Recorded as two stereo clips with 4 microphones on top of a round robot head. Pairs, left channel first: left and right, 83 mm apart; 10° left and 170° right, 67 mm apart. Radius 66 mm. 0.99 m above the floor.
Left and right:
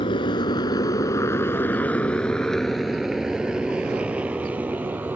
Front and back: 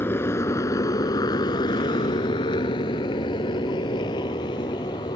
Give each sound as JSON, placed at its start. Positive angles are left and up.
{"t": 0.0, "sound": "a motorcycle", "azimuth_deg": 65}